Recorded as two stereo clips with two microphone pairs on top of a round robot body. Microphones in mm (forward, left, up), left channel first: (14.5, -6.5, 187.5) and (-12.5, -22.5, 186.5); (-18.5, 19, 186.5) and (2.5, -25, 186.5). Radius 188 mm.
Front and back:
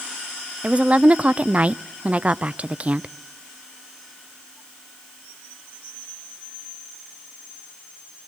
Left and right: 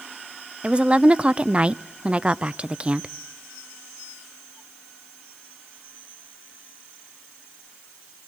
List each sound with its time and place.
0.6 s a woman speaking: 125° right, 0.6 m